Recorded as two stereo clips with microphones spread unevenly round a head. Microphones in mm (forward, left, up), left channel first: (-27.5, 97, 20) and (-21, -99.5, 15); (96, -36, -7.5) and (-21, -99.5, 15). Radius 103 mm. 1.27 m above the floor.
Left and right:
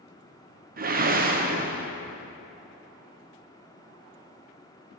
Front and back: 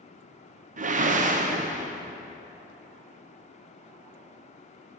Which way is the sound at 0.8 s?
135° right.